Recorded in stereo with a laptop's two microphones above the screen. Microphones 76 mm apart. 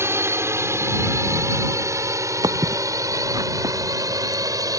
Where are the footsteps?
60° right (ahead or behind); by 4.8 s 50° right (ahead or behind).